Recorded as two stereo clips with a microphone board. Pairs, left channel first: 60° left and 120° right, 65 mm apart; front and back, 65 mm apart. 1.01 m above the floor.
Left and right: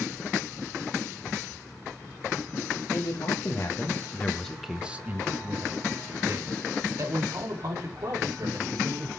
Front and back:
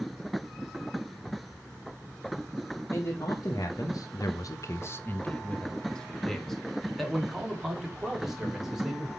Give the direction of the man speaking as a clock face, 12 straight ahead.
11 o'clock.